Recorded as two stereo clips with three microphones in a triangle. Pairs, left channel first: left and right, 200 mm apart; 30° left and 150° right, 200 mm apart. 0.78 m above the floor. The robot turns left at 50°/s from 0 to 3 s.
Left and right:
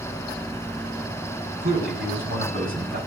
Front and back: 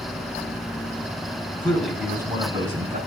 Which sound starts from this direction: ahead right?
A man speaking, at 1.6 s.